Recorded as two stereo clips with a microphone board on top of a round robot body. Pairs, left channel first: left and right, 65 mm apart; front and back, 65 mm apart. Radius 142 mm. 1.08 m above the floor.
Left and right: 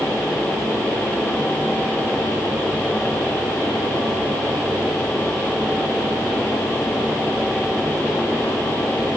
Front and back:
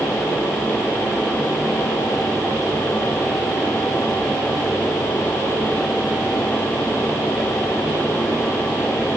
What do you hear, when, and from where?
Only background noise.